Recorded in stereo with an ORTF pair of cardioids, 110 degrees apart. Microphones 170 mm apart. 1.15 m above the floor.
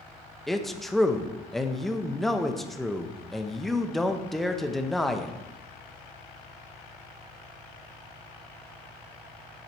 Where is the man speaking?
Straight ahead, 0.8 m.